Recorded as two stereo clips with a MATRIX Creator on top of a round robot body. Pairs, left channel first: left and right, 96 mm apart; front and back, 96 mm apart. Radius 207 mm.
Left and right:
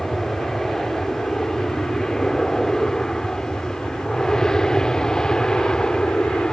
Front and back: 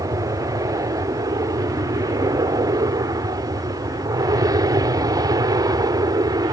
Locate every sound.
0.0 s an aircraft: 175° left; by 6.5 s 170° left